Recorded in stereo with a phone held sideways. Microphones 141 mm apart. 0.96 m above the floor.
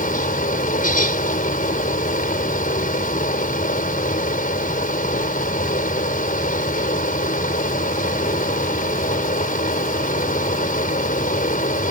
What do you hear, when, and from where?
0.0 s a fan: 80° left